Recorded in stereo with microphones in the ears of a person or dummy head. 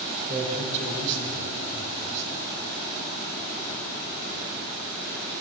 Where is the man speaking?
25° right (ahead or behind), 4.5 m; by 2.3 s 60° right (ahead or behind), 4 m.